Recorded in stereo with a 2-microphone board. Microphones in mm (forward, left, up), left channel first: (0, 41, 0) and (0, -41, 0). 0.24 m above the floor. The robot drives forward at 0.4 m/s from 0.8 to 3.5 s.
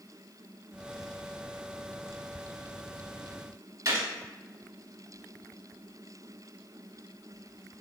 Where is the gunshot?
40° right (ahead or behind), 0.8 m.